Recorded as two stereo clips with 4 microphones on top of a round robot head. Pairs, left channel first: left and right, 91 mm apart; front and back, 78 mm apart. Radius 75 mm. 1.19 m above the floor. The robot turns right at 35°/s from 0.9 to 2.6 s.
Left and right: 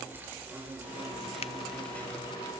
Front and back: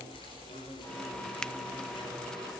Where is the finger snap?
85° left, 0.6 m.